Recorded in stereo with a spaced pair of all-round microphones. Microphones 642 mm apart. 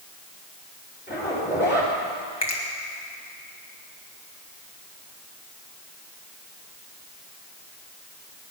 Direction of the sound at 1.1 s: 15° left (ahead or behind).